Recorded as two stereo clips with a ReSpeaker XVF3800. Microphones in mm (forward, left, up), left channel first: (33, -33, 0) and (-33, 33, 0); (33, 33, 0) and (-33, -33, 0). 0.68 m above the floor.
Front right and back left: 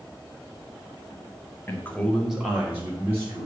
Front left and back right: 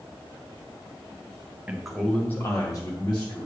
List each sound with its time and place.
1.7 s a man speaking: 70° right, 1.2 m; by 3.5 s 80° left, 2.5 m